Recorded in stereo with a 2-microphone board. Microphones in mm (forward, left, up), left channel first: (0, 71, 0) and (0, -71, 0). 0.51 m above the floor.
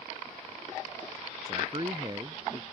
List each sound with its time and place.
1.5 s a man speaking: 35° right (ahead or behind); by 2.6 s 30° right (ahead or behind)